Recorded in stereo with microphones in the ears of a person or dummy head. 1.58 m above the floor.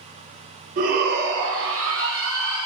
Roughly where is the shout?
Right.